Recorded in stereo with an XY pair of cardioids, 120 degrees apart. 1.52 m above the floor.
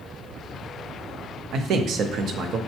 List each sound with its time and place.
1.5 s a man speaking: 60° right, 0.6 m